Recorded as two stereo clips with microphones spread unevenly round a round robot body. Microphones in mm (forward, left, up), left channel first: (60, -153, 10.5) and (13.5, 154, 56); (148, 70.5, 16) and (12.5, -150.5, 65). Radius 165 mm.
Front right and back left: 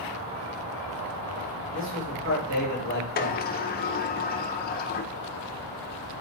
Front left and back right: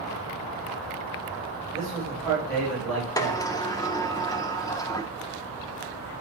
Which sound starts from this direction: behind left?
A man speaking, at 1.7 s.